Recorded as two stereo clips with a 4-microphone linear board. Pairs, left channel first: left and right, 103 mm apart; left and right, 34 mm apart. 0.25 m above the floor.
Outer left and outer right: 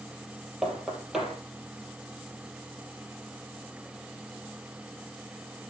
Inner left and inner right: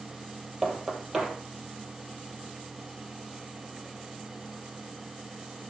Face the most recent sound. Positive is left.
turn(degrees=-5)  # may be behind; listen again after turning